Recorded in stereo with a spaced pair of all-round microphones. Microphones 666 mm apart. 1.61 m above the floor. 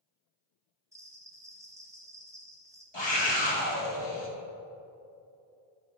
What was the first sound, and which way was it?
A bell, 5° right (ahead or behind).